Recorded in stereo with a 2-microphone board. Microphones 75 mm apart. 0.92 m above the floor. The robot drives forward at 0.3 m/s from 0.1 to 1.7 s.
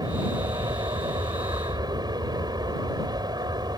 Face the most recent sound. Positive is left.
turn(degrees=-65)  # may be behind; listen again after turning